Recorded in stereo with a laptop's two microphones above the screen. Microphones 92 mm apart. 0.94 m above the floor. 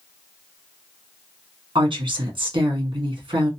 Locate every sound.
1.8 s a woman speaking: 60° right (ahead or behind), 1.8 m